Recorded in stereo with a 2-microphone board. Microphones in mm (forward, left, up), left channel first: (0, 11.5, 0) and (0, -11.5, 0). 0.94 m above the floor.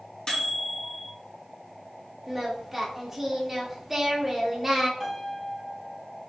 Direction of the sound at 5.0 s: 10° right (ahead or behind).